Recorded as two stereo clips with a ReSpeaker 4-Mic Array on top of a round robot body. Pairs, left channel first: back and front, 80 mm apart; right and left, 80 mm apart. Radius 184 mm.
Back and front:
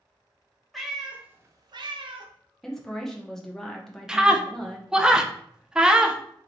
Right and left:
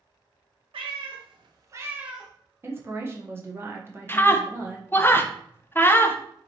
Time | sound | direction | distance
0.7 | a cat meowing | 90° left | 0.9 m
2.6 | a woman speaking | 100° left | 1.1 m
4.1 | a scream | 70° right | 0.8 m